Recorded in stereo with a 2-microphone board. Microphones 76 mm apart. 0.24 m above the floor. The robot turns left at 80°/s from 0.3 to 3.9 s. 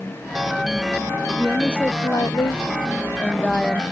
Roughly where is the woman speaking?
Behind.